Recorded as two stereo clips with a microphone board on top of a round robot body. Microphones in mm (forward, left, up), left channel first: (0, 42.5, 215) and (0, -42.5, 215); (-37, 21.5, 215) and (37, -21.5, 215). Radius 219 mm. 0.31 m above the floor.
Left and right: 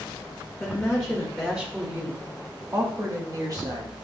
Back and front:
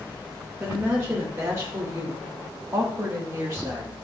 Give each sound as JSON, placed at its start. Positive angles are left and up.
{"t": 0.6, "sound": "a woman speaking", "azimuth_deg": 25, "distance_m": 1.6}